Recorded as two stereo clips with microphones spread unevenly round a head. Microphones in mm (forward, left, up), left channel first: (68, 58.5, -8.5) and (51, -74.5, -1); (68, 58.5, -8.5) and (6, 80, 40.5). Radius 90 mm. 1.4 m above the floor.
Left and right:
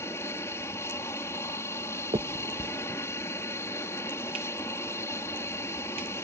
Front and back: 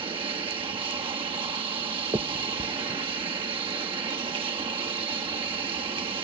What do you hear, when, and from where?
0.0 s an aircraft: 160° left
2.1 s a finger snap: 160° right